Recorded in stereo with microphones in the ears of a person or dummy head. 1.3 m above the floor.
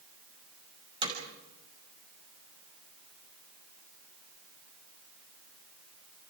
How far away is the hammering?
About 6 m.